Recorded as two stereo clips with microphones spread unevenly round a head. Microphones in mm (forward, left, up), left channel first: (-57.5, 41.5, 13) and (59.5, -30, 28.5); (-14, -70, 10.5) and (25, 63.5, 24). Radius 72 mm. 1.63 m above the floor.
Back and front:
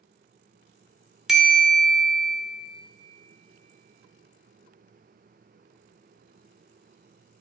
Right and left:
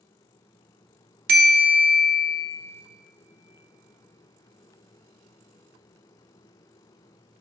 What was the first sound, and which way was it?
A bell, 55° left.